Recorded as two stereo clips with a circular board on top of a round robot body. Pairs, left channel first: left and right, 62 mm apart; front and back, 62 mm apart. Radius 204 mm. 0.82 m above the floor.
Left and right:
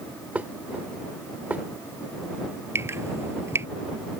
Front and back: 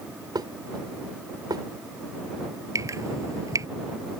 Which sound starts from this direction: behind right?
Dripping, at 2.8 s.